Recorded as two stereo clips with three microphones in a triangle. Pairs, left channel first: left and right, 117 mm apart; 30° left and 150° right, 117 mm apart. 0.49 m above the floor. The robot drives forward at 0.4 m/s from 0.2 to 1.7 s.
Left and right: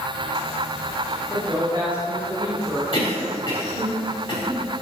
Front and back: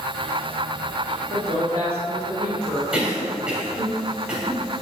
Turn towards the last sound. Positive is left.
turn(degrees=130)